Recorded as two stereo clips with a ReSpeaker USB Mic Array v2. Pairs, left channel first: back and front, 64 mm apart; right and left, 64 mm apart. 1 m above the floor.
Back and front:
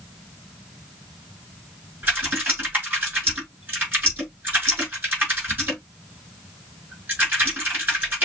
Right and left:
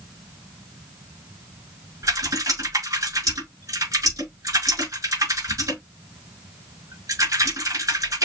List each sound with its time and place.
2.0 s typing on a keyboard: 60° left, 5 m